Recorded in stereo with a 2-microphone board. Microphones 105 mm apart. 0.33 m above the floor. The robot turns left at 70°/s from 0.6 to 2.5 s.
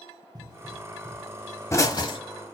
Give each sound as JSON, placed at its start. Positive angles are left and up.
{"t": 0.3, "sound": "a pop", "side_deg": -40, "distance_m": 1.1}